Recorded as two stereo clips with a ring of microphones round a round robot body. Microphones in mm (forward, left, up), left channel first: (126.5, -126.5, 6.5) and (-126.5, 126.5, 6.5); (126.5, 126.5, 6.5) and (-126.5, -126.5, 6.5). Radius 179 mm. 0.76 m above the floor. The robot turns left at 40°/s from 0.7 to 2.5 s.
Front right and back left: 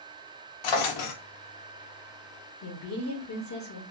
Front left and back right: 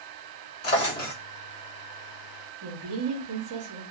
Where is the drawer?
10° right, 0.7 m; by 1.1 s 30° right, 0.7 m.